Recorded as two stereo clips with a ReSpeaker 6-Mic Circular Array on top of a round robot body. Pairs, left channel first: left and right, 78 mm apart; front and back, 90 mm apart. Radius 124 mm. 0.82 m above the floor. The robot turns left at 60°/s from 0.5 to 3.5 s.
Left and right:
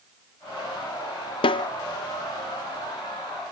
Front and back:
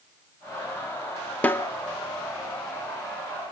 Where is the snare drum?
75° left, 0.8 m; by 1.7 s 60° left, 0.8 m.